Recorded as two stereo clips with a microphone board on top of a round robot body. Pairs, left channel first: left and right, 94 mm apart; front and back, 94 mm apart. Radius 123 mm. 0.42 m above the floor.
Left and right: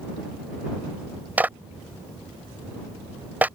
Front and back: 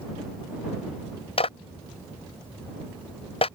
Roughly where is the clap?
Ahead.